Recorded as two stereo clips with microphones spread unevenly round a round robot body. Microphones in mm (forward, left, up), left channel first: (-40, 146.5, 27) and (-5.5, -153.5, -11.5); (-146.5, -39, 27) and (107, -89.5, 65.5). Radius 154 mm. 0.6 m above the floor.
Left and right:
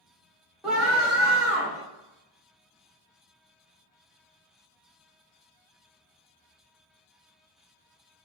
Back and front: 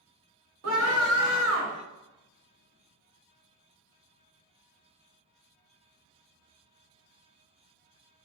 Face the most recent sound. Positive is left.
turn(degrees=0)